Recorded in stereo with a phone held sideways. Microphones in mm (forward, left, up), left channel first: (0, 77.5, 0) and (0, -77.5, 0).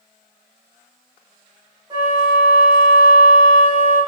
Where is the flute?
25° right (ahead or behind), 1.0 m.